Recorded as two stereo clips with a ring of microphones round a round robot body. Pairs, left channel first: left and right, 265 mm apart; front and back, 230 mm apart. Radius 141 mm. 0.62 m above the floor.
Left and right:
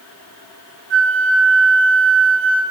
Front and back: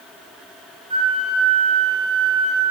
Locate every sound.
0.9 s a flute: 115° right, 0.8 m